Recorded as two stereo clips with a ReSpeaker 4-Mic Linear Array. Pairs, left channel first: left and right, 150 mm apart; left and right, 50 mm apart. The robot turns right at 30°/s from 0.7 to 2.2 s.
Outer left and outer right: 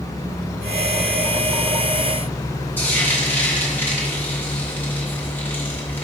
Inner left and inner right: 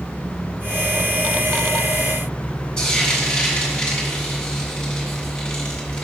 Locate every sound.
2.8 s frying: 15° left (ahead or behind), 2.5 m